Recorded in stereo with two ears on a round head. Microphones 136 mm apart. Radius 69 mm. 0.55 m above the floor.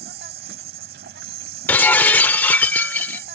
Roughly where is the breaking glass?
Centre.